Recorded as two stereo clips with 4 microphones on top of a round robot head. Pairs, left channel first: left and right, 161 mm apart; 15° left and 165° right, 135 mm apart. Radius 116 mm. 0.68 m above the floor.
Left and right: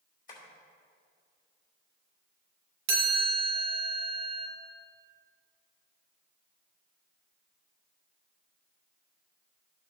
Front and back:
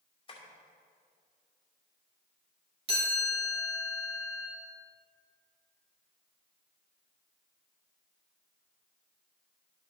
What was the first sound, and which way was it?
Tapping, 60° left.